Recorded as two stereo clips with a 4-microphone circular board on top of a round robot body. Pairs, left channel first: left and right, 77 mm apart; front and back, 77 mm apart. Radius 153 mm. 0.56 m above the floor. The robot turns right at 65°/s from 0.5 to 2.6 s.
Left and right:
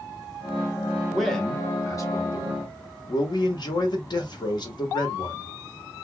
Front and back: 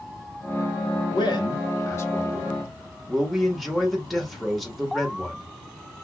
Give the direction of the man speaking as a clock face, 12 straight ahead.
12 o'clock.